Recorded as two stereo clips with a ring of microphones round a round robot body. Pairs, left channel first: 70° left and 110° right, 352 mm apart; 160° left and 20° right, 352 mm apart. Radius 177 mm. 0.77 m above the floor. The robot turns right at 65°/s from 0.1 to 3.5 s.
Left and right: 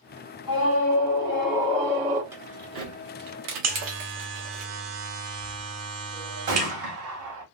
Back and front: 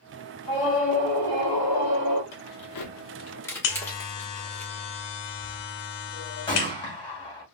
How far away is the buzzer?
About 0.7 m.